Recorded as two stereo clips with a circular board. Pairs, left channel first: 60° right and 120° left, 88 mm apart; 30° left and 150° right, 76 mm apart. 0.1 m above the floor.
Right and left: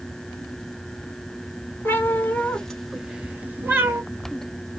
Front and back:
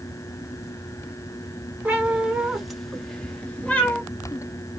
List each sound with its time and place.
1.9 s a cat meowing: 95° right, 0.9 m; by 4.0 s 85° left, 0.9 m